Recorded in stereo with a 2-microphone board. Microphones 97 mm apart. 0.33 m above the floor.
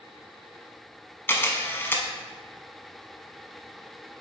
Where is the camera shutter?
25° left (ahead or behind), 1.0 m.